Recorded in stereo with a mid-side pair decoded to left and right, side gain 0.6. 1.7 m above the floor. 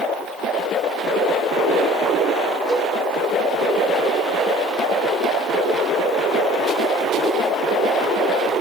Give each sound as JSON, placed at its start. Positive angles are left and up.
{"t": 2.7, "sound": "a cowbell", "azimuth_deg": -5, "distance_m": 3.5}